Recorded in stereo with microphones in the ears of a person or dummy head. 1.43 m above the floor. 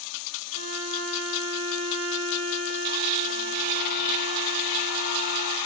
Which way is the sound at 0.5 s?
80° right.